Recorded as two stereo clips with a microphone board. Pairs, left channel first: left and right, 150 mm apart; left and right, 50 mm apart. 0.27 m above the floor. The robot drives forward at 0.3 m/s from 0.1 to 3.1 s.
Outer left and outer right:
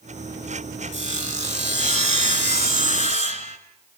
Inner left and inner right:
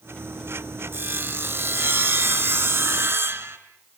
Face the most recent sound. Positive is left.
turn(degrees=-60)  # may be behind; listen again after turning